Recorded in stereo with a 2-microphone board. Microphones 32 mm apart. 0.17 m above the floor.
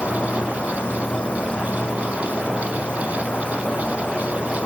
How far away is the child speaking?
I don't hear a child speaking.